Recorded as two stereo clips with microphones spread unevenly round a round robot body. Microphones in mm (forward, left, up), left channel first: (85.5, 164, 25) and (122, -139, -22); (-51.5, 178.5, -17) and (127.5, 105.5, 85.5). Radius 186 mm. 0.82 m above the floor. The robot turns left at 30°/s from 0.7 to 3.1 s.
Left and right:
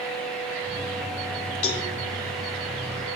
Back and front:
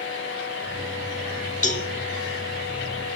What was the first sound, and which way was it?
A cowbell, 150° left.